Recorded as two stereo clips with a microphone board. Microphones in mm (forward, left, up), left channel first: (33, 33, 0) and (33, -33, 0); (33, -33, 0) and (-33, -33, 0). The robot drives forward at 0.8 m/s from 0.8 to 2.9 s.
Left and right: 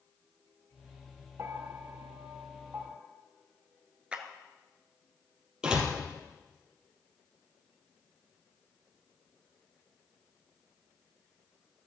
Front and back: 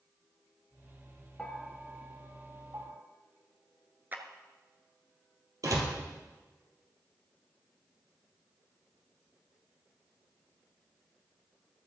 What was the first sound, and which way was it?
A bell, 70° right.